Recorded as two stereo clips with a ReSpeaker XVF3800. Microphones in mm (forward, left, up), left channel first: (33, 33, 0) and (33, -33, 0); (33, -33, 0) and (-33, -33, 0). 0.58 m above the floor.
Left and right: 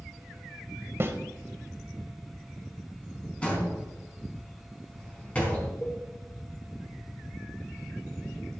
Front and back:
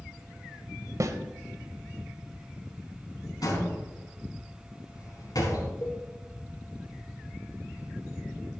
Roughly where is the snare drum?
Behind right.